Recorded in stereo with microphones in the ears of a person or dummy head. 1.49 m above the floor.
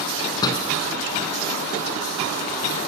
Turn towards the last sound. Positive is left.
turn(degrees=20)  # may be behind; listen again after turning